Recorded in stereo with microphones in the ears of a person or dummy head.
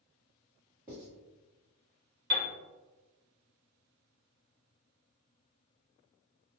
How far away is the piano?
About 0.9 m.